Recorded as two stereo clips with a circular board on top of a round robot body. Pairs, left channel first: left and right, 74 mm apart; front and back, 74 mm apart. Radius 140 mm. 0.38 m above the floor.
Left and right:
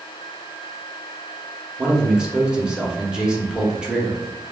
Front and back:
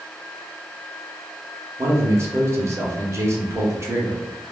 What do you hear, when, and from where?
1.8 s a man speaking: 165° right, 1.0 m